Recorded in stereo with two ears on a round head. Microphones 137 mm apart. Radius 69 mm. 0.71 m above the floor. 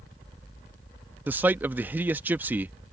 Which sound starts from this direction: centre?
A man speaking, at 1.3 s.